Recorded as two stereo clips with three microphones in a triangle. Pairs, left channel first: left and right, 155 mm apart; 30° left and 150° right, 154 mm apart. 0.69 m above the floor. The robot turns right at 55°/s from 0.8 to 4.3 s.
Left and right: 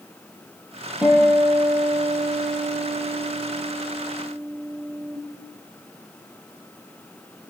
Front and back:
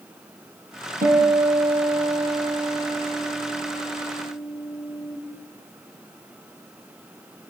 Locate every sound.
1.0 s a guitar: 170° right, 7 m; by 5.2 s 10° left, 7 m